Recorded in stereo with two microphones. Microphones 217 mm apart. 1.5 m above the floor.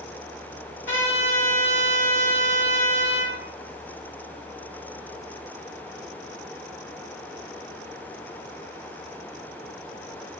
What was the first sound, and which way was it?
A trumpet, 65° left (ahead or behind).